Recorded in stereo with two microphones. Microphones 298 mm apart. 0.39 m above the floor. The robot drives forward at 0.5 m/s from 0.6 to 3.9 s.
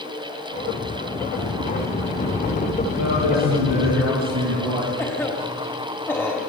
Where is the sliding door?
55° left (ahead or behind), 2.5 m; by 4.0 s 35° left (ahead or behind), 3 m.